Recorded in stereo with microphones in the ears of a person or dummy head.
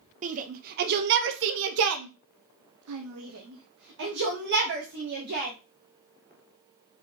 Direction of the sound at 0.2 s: 35° right (ahead or behind).